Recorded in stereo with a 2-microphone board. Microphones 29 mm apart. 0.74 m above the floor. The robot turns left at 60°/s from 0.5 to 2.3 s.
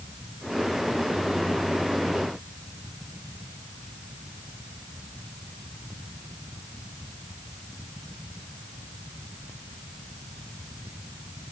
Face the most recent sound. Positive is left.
No sound to turn to.